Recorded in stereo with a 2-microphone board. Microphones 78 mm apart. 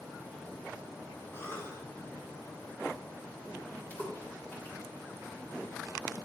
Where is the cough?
30° left (ahead or behind), 3.5 m.